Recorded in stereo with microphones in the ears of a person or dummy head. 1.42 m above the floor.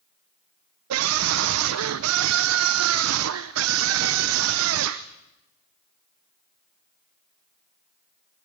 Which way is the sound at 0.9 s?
70° right (ahead or behind).